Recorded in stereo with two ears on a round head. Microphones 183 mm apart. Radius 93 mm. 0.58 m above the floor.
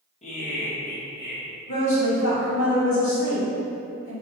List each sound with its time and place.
0.2 s laughter: 30° left (ahead or behind), 0.7 m; by 1.4 s 55° left (ahead or behind), 1.3 m
1.7 s a woman speaking: 65° left (ahead or behind), 1.4 m